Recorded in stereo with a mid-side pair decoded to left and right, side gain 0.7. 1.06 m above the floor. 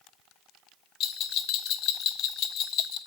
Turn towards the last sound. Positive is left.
turn(degrees=55)